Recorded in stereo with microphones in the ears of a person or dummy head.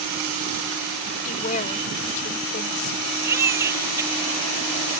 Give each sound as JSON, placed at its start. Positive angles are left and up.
{"t": 1.2, "sound": "a woman speaking", "side_deg": 45}
{"t": 3.2, "sound": "a baby crying", "side_deg": -15}